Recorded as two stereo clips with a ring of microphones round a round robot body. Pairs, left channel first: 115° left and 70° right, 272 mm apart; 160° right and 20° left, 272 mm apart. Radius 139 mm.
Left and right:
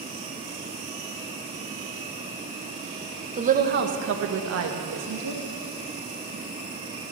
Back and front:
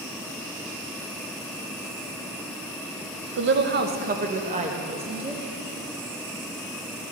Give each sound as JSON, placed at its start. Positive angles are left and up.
{"t": 3.4, "sound": "a woman speaking", "azimuth_deg": -10, "distance_m": 0.9}